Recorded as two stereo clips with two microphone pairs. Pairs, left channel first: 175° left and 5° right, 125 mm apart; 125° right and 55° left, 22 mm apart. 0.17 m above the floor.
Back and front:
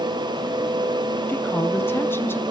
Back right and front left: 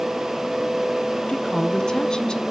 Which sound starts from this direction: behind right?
A woman speaking, at 1.3 s.